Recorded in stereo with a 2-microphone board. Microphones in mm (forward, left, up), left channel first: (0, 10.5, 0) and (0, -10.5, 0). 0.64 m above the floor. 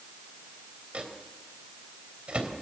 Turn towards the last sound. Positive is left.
turn(degrees=-70)  # may be behind; listen again after turning